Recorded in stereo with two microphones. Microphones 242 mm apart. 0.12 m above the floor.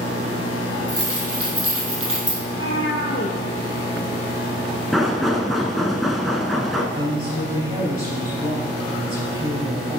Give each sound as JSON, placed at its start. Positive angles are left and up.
{"t": 0.9, "sound": "keys jangling", "side_deg": -75, "distance_m": 3.5}
{"t": 2.4, "sound": "a cat meowing", "side_deg": 65, "distance_m": 1.4}
{"t": 4.9, "sound": "knocking", "side_deg": 0, "distance_m": 0.8}
{"t": 6.9, "sound": "a woman speaking", "side_deg": -25, "distance_m": 3.0}